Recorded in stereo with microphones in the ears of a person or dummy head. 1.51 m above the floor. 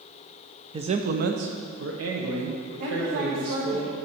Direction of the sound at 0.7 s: 20° right (ahead or behind).